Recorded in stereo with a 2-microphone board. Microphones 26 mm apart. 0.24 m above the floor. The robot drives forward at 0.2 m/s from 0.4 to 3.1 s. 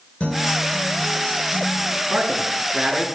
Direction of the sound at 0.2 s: 45° left (ahead or behind).